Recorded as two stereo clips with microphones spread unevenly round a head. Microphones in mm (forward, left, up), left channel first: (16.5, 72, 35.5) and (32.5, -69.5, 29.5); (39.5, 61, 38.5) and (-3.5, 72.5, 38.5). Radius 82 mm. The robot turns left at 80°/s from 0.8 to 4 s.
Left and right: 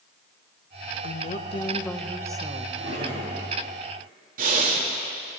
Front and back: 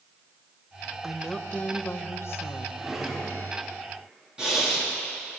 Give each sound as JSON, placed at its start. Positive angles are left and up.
{"t": 1.0, "sound": "a woman speaking", "azimuth_deg": 85, "distance_m": 1.0}
{"t": 2.8, "sound": "a drawer", "azimuth_deg": -95, "distance_m": 4.0}
{"t": 4.4, "sound": "breathing", "azimuth_deg": -120, "distance_m": 1.8}